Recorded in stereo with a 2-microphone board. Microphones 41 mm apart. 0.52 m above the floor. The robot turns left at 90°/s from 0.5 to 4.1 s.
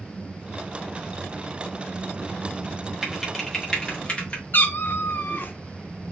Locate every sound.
3.0 s typing on a keyboard: 15° right (ahead or behind), 1.2 m; by 4.4 s 20° left (ahead or behind), 1.2 m
4.5 s a cat meowing: 50° left (ahead or behind), 0.5 m